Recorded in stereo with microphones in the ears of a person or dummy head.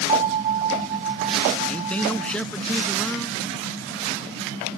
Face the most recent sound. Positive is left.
turn(degrees=10)  # may be behind; listen again after turning